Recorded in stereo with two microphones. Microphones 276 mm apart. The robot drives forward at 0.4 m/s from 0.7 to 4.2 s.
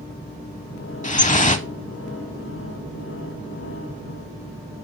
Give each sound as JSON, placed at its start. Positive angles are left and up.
{"t": 1.0, "sound": "dripping", "side_deg": 25, "distance_m": 0.6}